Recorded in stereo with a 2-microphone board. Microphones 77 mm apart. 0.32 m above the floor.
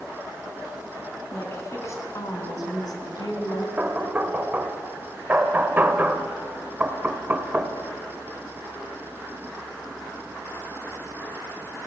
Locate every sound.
1.3 s a woman speaking: 30° left (ahead or behind), 3.5 m; by 3.7 s 65° left (ahead or behind), 3.5 m
3.8 s knocking: 25° right (ahead or behind), 1.1 m